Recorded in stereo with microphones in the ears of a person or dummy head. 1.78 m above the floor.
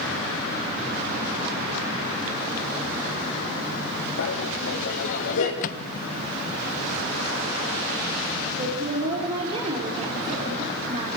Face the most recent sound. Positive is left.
turn(degrees=-35)  # may be behind; listen again after turning